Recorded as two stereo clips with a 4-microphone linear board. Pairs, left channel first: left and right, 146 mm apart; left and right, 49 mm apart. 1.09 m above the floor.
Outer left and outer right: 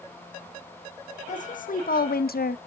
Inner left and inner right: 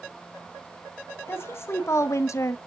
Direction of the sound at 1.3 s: 55° left (ahead or behind).